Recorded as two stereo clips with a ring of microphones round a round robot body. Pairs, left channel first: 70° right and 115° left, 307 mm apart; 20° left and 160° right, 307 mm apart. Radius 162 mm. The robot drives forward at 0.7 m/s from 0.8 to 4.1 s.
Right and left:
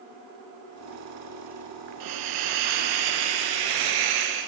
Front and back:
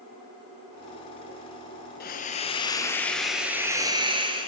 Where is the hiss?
85° left, 1.7 m; by 4.5 s 125° left, 2 m.